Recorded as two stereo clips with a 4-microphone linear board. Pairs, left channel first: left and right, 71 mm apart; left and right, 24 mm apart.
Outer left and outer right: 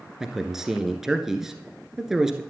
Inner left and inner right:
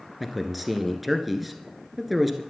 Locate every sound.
0.2 s a man speaking: 5° right (ahead or behind), 1.5 m